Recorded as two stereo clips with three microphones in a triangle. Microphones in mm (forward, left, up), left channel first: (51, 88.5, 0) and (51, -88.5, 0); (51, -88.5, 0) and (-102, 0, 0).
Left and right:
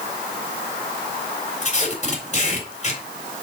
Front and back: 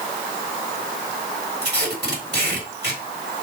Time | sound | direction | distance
1.6 | tape being pulled | 140° left | 4 m